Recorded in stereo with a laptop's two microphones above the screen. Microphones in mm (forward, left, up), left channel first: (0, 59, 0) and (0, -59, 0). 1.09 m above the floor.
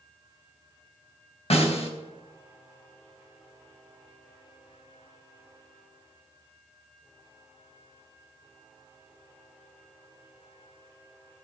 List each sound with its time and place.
1.5 s a snare drum: 60° left (ahead or behind), 3 m